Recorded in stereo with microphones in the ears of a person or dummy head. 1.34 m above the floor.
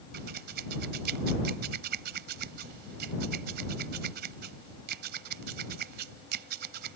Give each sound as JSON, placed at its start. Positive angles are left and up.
{"t": 0.1, "sound": "scissors", "side_deg": -60}